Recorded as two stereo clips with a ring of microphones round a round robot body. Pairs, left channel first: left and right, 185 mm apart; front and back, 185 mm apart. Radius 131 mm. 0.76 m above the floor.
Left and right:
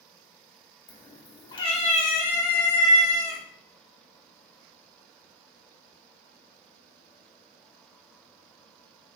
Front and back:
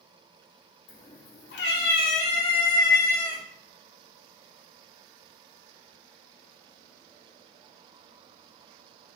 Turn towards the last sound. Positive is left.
turn(degrees=85)